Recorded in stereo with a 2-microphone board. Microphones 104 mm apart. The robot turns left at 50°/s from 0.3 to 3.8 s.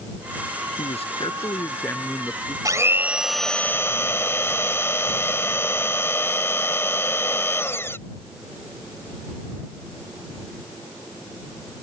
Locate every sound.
0.8 s a man speaking: 75° left; by 2.5 s 10° right
2.6 s a blender: 145° right; by 8.0 s 155° left